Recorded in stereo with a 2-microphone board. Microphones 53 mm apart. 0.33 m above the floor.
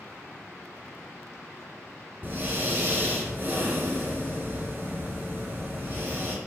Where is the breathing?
45° right (ahead or behind), 4.5 m.